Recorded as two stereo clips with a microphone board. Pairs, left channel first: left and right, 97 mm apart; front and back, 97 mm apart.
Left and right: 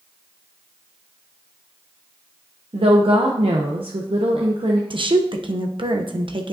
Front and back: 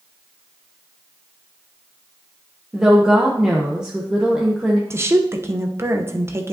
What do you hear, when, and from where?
2.7 s a woman speaking: 100° right, 0.8 m
4.9 s a woman speaking: 120° right, 0.8 m